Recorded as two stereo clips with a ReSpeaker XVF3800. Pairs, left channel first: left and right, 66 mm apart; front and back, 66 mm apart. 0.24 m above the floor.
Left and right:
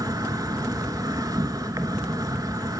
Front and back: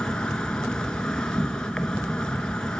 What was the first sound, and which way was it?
An insect, 75° right.